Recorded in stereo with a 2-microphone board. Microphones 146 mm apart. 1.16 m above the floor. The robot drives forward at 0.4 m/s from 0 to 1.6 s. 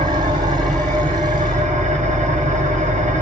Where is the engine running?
55° right (ahead or behind), 1.7 m; by 3.2 s 60° right (ahead or behind), 1.6 m.